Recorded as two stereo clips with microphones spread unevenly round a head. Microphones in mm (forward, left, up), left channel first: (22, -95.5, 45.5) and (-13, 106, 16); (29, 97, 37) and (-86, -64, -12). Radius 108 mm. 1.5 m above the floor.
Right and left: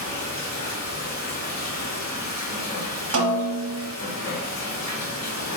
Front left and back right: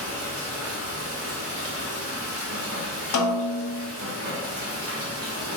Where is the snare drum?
75° left, 0.8 m.